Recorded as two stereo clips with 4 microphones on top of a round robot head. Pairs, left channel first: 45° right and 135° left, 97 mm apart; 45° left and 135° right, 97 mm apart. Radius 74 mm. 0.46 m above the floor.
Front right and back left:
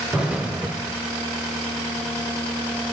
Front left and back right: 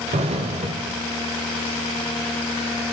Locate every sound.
0.1 s an explosion: 150° right, 0.8 m